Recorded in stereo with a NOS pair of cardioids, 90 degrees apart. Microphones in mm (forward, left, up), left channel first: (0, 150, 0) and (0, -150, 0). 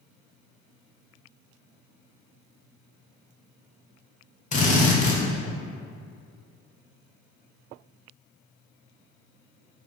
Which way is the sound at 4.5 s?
25° left.